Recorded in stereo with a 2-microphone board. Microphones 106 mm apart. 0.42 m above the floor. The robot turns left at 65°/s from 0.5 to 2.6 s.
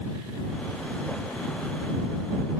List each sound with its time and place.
Only background noise.